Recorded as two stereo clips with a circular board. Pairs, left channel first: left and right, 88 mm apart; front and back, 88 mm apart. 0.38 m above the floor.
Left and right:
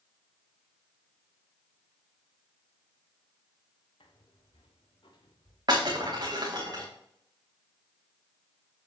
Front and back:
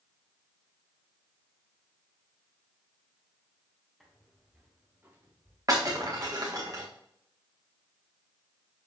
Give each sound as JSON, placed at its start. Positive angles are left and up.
{"t": 4.0, "sound": "footsteps", "azimuth_deg": 95, "distance_m": 4.0}
{"t": 5.7, "sound": "breaking glass", "azimuth_deg": -130, "distance_m": 5.5}